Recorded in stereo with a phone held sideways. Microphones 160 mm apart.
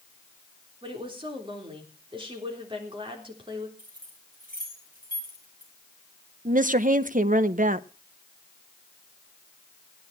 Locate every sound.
0.8 s a woman speaking: 30° right (ahead or behind), 3.5 m
3.8 s keys jangling: 60° right (ahead or behind), 6 m
6.5 s a woman speaking: 55° right (ahead or behind), 0.7 m